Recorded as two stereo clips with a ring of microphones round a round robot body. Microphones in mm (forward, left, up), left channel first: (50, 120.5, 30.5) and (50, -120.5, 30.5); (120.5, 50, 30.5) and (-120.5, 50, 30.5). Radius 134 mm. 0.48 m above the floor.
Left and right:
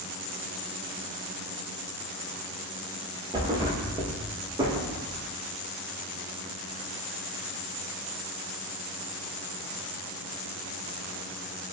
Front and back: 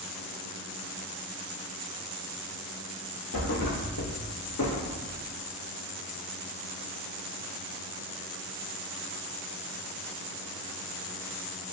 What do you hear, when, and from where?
3.3 s a thud: 20° right, 0.8 m